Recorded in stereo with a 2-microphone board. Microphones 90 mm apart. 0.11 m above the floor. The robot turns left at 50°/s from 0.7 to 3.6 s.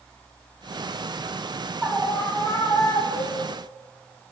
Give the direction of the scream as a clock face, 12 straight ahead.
6 o'clock.